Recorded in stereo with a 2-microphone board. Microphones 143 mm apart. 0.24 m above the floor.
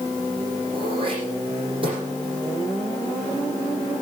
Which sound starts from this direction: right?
Throat clearing, at 0.7 s.